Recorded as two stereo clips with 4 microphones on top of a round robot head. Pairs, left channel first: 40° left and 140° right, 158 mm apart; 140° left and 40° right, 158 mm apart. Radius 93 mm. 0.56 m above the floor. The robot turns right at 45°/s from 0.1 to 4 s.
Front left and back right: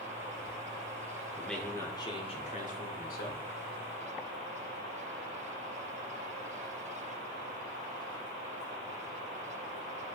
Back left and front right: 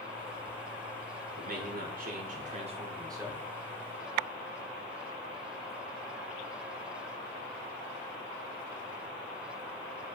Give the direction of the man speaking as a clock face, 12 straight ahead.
2 o'clock.